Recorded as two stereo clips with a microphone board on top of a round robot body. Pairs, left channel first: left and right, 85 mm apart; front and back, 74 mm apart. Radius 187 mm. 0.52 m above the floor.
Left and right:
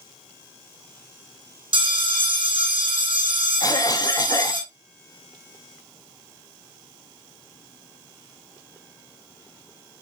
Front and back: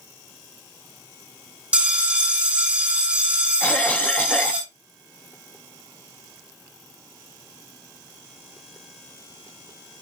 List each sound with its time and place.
1.7 s a bell: 105° right, 5.5 m
3.6 s a cough: 65° left, 0.9 m